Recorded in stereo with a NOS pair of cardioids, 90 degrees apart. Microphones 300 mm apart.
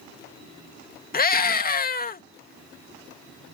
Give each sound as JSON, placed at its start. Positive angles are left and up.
{"t": 1.1, "sound": "a scream", "azimuth_deg": 30}